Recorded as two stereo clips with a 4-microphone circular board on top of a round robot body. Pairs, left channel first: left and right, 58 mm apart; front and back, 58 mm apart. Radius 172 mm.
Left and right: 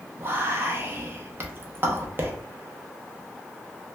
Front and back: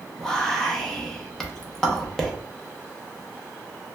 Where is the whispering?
80° right, 0.7 m.